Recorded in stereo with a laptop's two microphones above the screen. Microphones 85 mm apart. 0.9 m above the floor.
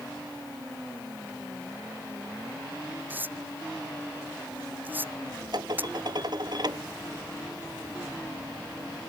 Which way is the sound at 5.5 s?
55° right (ahead or behind).